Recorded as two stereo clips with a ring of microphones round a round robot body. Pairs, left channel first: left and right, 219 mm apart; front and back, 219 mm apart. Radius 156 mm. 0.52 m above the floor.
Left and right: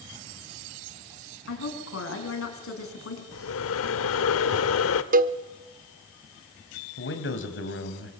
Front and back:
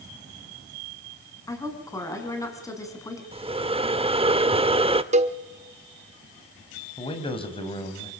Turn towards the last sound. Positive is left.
turn(degrees=65)